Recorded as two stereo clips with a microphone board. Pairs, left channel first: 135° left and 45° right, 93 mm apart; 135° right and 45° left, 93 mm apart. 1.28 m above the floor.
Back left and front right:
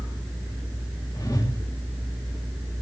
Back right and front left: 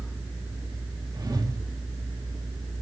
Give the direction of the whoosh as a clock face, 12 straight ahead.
9 o'clock.